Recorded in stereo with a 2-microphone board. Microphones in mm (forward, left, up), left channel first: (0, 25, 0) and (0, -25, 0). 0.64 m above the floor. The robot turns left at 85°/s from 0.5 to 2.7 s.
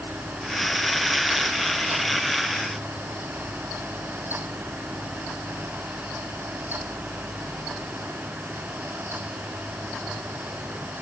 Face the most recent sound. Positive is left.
No sound to turn to.